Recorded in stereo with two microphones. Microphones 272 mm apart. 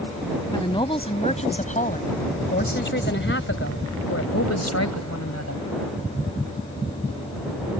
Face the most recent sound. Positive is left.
turn(degrees=75)  # may be behind; listen again after turning